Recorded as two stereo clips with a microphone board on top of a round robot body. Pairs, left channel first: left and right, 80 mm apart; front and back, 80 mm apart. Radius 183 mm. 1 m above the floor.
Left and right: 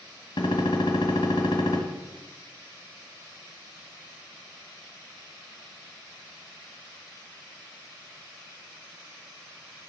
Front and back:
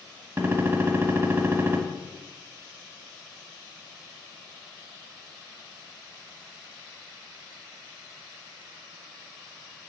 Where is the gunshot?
110° left, 1.6 m.